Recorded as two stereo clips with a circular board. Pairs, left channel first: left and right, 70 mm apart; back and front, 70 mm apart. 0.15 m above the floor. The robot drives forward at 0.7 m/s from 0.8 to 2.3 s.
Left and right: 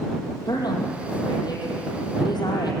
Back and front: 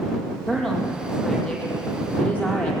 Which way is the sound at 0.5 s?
100° left.